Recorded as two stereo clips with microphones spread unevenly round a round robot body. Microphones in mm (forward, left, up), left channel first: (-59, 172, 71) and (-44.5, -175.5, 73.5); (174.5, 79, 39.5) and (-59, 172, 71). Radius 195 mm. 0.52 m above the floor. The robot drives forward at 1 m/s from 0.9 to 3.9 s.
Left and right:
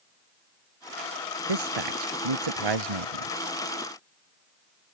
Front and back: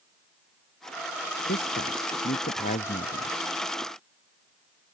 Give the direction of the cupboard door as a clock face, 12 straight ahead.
I don't hear a cupboard door.